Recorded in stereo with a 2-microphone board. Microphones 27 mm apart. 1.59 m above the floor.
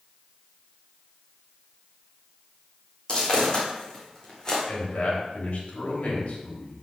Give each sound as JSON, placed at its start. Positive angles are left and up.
{"t": 3.1, "sound": "footsteps", "side_deg": 40, "distance_m": 4.0}
{"t": 4.7, "sound": "a man speaking", "side_deg": 65, "distance_m": 3.0}